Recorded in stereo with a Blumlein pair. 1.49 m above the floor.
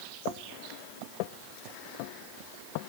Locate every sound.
Only background noise.